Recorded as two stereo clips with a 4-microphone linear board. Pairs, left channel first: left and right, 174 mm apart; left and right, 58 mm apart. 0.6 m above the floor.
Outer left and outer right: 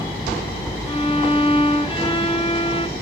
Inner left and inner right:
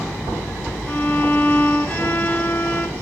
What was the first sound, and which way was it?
A violin, 35° left (ahead or behind).